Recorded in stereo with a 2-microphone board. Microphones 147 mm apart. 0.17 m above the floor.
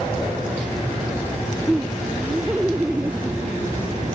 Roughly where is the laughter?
Centre.